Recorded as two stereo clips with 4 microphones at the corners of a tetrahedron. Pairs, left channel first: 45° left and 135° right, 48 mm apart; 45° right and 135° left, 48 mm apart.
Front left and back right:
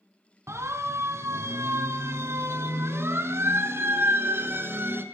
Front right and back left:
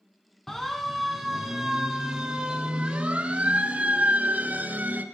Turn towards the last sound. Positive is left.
turn(degrees=-170)